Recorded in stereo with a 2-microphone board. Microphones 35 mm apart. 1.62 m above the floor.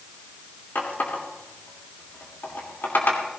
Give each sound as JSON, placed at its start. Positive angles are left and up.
{"t": 0.8, "sound": "a running tap", "side_deg": 65, "distance_m": 3.0}